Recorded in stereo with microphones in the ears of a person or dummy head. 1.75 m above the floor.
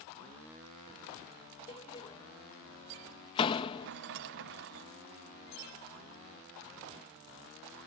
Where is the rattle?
55° right (ahead or behind).